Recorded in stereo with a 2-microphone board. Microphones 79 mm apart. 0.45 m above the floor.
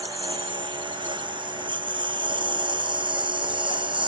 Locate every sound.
0.0 s a lawn mower: 85° right